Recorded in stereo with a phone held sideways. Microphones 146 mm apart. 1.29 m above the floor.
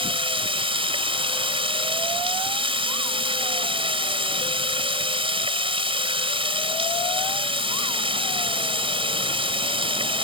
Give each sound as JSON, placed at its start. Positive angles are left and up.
{"t": 0.0, "sound": "running water", "side_deg": -35}